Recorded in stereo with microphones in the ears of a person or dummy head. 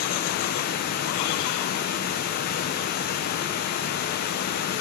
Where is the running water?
55° left (ahead or behind), 1.0 m.